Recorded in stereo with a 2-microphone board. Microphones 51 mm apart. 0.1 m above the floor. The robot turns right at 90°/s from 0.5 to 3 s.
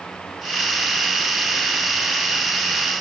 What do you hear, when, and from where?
Only background noise.